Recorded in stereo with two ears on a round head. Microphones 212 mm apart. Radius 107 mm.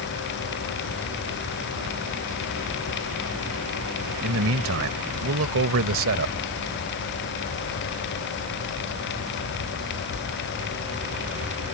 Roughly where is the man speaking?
Right.